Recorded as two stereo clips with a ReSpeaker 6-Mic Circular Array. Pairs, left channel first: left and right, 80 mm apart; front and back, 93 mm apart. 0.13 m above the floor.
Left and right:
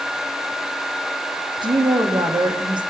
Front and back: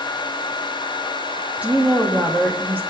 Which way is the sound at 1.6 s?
105° right.